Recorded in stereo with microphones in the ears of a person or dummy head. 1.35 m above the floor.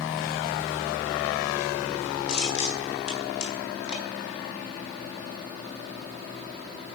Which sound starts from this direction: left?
Crushing, at 2.3 s.